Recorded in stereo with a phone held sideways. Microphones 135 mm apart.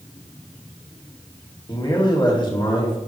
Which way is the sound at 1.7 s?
35° left (ahead or behind).